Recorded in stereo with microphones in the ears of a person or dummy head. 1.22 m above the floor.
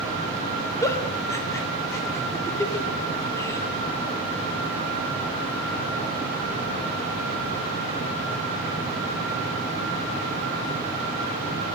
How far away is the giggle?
About 0.7 m.